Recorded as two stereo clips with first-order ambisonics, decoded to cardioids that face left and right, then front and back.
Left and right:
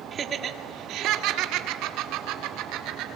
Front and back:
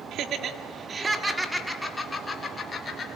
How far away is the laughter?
About 1.7 m.